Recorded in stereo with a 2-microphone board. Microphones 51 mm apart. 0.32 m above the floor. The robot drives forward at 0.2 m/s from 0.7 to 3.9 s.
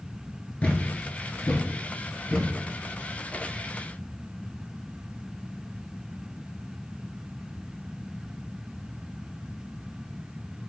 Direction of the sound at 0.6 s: 25° left (ahead or behind).